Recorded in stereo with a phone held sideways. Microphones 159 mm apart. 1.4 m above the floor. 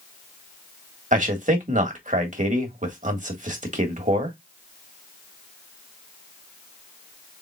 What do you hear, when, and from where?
1.1 s a man speaking: 55° right (ahead or behind), 1.5 m